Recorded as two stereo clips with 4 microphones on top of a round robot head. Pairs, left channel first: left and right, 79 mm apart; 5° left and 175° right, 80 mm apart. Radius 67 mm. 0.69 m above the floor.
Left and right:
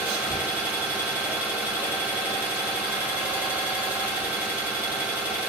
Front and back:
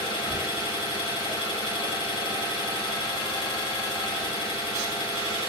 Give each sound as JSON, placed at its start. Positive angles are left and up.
{"t": 0.0, "sound": "an engine running", "azimuth_deg": -15, "distance_m": 1.6}